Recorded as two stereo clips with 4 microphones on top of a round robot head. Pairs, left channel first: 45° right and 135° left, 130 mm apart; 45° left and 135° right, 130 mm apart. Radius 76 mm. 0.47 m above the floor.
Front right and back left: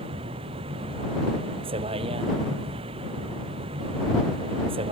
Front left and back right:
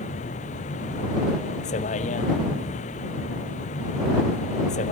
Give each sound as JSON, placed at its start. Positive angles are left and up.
{"t": 0.0, "sound": "a vehicle", "azimuth_deg": 85}